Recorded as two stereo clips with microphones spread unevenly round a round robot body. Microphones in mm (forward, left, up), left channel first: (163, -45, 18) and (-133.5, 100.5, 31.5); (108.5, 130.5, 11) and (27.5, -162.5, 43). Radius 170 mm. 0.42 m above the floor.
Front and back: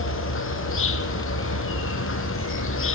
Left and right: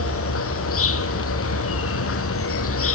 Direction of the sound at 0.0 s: 30° left.